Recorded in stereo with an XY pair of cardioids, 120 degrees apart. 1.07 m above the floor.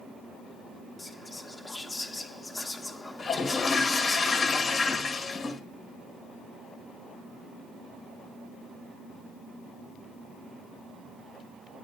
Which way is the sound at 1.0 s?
20° left.